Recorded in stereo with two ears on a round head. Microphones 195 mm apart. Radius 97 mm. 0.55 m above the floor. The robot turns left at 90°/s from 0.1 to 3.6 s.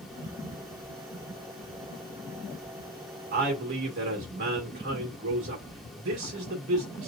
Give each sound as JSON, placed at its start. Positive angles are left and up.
{"t": 3.3, "sound": "a man speaking", "side_deg": -40, "distance_m": 1.6}